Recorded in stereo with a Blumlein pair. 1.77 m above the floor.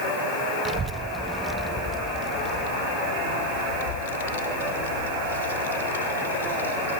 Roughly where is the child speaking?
Ahead right.